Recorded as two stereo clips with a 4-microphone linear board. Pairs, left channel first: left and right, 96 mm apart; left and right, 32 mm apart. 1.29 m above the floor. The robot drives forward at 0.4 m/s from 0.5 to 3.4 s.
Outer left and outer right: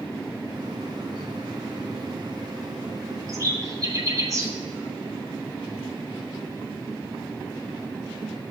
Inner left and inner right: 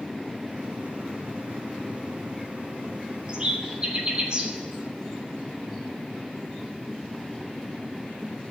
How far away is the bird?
About 1.8 m.